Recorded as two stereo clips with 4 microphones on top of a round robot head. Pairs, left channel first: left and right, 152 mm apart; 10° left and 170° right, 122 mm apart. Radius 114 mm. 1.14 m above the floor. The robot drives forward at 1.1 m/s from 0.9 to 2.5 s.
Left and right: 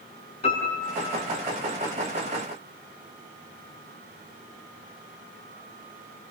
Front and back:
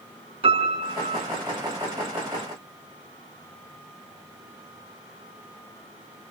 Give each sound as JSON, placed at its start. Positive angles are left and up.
{"t": 0.4, "sound": "a piano", "azimuth_deg": 150, "distance_m": 4.5}